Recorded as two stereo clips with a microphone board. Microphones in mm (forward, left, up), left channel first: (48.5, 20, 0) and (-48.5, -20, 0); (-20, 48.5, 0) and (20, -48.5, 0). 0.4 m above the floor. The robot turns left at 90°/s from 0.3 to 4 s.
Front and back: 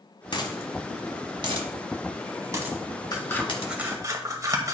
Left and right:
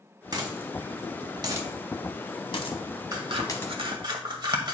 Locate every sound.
0.3 s a dropped coin: 15° right, 1.1 m; by 3.7 s 35° left, 1.1 m
3.1 s scissors: 25° right, 1.0 m; by 4.7 s 105° right, 1.0 m